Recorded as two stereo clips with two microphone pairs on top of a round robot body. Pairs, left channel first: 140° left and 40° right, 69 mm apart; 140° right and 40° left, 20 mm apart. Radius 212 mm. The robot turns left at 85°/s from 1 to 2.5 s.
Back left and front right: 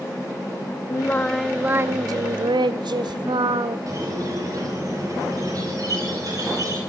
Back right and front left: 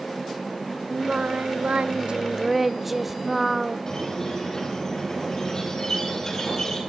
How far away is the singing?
About 0.5 m.